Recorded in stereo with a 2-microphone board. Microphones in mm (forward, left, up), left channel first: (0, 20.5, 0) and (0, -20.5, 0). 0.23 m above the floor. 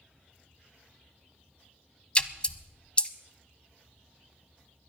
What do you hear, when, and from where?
2.1 s a splash: 25° left (ahead or behind), 0.7 m